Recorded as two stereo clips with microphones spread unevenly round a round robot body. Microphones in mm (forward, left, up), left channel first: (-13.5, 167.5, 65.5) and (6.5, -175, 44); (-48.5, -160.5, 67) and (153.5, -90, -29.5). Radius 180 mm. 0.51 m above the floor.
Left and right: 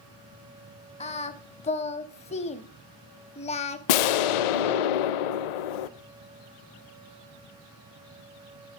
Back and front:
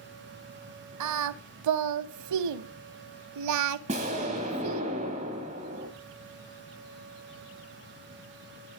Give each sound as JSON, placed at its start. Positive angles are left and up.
{"t": 1.0, "sound": "singing", "azimuth_deg": 25, "distance_m": 0.5}
{"t": 3.9, "sound": "an explosion", "azimuth_deg": 95, "distance_m": 0.6}